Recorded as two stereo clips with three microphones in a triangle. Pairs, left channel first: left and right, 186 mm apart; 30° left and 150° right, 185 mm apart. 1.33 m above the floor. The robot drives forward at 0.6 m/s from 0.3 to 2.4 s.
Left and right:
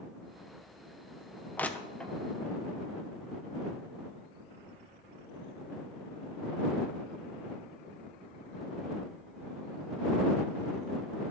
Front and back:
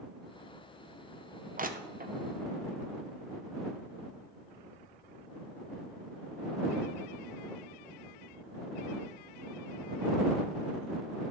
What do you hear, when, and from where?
1.6 s crushing: 170° left, 0.5 m; by 2.1 s 175° left, 0.9 m